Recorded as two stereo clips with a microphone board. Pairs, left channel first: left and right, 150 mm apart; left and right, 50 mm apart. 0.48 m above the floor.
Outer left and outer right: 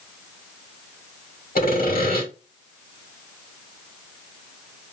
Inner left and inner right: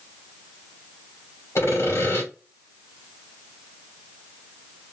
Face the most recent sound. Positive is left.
turn(degrees=70)  # may be behind; listen again after turning